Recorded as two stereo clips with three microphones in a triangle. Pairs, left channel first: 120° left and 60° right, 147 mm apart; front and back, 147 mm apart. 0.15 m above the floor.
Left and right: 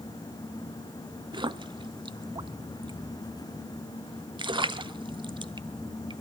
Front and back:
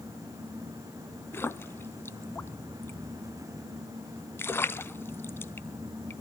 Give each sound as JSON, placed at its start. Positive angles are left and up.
{"t": 1.3, "sound": "a splash", "azimuth_deg": -60, "distance_m": 0.5}